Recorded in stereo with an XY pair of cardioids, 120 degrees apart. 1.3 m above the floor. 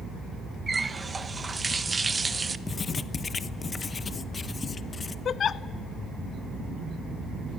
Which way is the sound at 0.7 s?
25° right.